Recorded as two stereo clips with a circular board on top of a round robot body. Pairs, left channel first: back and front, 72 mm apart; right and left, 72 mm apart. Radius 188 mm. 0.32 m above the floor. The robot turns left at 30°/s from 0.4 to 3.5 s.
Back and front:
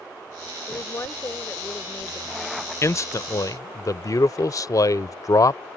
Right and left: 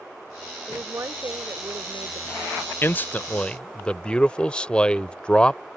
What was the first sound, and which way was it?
A woman speaking, 150° left.